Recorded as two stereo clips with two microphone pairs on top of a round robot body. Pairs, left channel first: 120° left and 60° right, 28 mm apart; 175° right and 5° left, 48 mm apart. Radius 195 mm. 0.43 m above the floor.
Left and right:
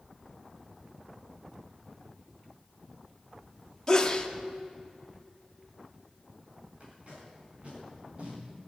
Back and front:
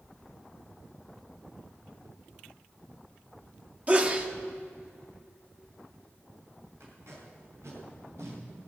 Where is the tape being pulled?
15° right, 4.5 m.